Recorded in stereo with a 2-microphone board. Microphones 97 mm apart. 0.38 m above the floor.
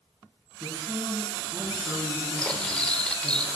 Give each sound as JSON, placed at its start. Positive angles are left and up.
{"t": 0.6, "sound": "a man speaking", "side_deg": -40, "distance_m": 3.5}
{"t": 2.4, "sound": "cutlery clinking", "side_deg": 10, "distance_m": 0.7}